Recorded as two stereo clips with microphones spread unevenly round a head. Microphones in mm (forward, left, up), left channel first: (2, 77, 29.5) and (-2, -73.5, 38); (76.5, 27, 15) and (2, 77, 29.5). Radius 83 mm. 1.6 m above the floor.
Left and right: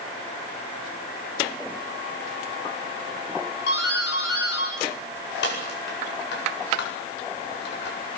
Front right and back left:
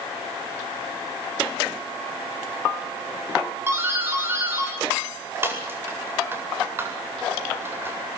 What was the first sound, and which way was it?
A doorbell, 85° left.